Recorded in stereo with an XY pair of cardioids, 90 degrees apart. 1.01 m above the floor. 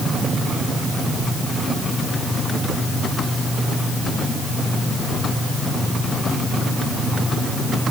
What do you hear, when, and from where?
Only background noise.